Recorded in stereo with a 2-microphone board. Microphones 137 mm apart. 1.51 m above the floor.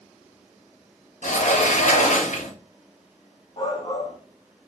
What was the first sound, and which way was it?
A sliding door, 70° left (ahead or behind).